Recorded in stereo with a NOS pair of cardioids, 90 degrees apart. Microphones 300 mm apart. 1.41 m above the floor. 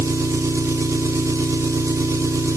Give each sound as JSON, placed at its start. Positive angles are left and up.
{"t": 0.0, "sound": "an engine running", "azimuth_deg": -10, "distance_m": 1.9}